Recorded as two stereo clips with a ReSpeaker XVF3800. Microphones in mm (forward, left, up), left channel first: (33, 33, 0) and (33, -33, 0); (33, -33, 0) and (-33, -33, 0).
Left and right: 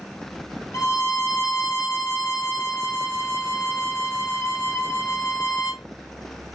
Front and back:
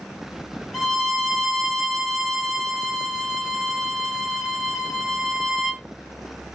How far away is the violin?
About 1.3 m.